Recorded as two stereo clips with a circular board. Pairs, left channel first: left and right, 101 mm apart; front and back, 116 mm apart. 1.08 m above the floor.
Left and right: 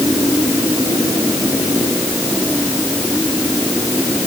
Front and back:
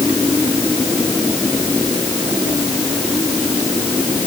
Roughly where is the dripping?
I don't hear dripping.